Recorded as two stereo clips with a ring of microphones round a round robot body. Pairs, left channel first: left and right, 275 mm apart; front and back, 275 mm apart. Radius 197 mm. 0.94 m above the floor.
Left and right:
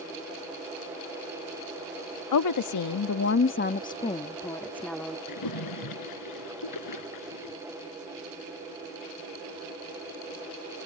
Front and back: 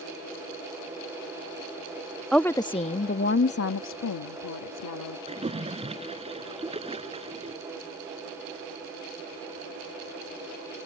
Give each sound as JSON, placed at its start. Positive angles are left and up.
{"t": 2.3, "sound": "a woman speaking", "azimuth_deg": 90}
{"t": 5.3, "sound": "a splash", "azimuth_deg": 110}